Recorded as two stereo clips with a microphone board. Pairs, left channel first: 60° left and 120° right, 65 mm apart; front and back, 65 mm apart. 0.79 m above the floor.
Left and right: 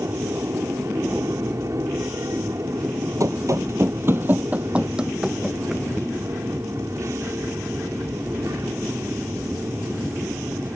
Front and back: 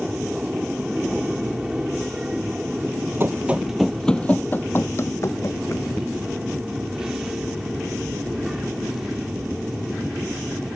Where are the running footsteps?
130° right; by 5.9 s 35° right.